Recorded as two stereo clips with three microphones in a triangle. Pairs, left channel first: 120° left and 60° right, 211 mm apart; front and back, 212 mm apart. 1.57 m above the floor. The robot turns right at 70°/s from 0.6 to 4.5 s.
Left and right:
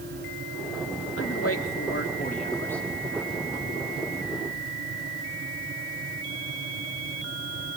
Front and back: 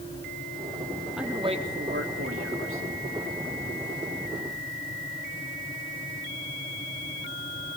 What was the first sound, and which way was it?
A man speaking, 90° left.